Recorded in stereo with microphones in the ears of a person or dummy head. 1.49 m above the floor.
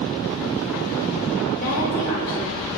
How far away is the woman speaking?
About 2.5 m.